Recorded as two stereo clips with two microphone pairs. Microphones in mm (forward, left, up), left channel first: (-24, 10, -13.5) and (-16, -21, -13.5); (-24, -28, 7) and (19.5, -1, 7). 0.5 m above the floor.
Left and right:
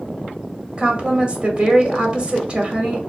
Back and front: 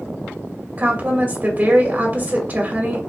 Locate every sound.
0.8 s a woman speaking: 20° right, 1.7 m